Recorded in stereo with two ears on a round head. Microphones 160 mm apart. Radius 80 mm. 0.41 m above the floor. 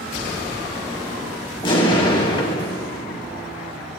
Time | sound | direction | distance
1.6 | an explosion | 30° left (ahead or behind) | 2 m